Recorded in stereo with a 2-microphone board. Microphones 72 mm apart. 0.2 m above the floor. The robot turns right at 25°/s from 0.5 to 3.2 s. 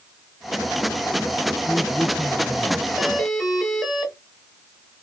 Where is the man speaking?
25° right, 1.9 m; by 2.9 s 5° left, 1.9 m.